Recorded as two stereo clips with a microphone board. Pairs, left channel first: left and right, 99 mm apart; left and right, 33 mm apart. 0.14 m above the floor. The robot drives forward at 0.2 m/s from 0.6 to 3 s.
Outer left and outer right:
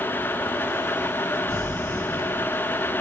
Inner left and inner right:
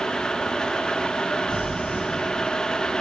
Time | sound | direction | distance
1.5 | crumpling | 75° left (ahead or behind) | 3 m